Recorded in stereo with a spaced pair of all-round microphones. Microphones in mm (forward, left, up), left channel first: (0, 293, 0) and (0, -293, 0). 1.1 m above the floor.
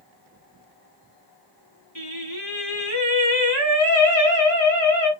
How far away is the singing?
About 2 m.